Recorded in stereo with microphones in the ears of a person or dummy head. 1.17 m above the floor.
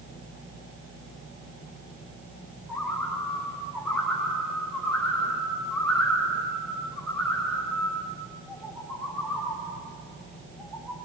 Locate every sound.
2.7 s a bird: centre (ahead or behind), 9 m